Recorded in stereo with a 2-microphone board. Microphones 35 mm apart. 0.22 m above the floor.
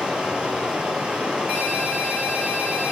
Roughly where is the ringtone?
Right.